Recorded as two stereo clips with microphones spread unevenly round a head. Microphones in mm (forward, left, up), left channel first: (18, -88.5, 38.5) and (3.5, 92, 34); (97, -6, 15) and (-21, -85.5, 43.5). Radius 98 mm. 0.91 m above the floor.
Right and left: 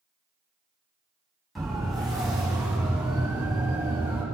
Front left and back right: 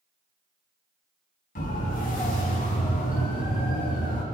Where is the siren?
5° left, 9.5 m; by 4.2 s 15° left, 8 m.